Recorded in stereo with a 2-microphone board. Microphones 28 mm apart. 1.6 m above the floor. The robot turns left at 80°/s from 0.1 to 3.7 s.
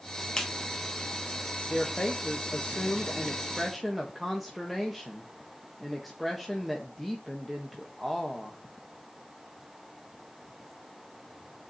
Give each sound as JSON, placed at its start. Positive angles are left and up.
{"t": 0.4, "sound": "a clap", "side_deg": 15, "distance_m": 1.5}
{"t": 1.7, "sound": "a woman speaking", "azimuth_deg": 160, "distance_m": 1.4}